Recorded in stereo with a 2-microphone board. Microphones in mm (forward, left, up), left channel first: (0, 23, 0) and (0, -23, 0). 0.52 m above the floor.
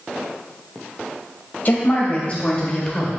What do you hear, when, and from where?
1.6 s a woman speaking: 40° left (ahead or behind), 3 m; by 3.1 s 15° left (ahead or behind), 2 m